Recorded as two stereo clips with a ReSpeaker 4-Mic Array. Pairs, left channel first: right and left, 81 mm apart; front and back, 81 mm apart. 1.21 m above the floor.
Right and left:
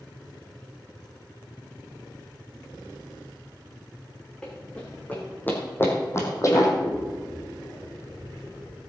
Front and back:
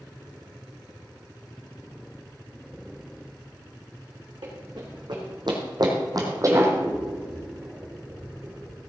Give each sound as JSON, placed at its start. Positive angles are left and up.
{"t": 4.4, "sound": "running footsteps", "azimuth_deg": -170, "distance_m": 4.5}
{"t": 6.8, "sound": "scissors", "azimuth_deg": -135, "distance_m": 5.0}